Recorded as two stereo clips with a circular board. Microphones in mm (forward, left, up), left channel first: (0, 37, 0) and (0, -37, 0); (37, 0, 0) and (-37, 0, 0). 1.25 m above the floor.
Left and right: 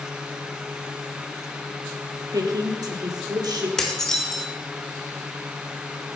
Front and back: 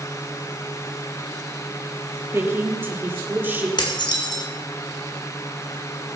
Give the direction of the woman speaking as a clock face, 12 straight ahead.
4 o'clock.